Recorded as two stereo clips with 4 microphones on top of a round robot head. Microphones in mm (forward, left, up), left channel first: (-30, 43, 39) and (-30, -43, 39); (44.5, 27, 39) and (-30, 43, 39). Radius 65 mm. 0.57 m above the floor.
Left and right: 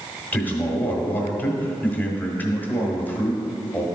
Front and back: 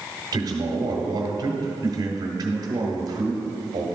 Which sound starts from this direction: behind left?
A man speaking, at 0.3 s.